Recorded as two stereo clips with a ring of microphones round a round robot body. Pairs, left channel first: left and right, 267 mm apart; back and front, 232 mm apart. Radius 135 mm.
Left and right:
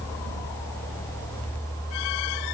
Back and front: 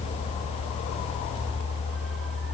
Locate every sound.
Only background noise.